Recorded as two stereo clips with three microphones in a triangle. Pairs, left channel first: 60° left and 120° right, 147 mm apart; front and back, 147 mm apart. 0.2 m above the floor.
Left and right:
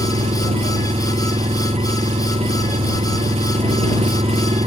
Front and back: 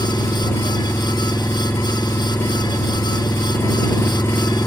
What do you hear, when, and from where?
0.0 s an engine running: 75° right